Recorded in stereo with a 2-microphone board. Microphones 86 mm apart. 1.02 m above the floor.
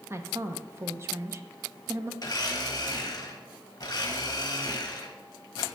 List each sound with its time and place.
0.1 s a woman speaking: 30° right (ahead or behind), 0.6 m
2.2 s a blender: 45° left (ahead or behind), 0.9 m